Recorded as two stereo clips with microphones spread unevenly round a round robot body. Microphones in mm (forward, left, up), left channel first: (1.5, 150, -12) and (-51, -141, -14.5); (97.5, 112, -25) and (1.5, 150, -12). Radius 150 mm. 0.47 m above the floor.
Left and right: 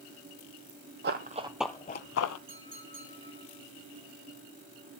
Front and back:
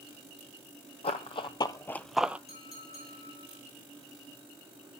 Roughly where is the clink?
Ahead right.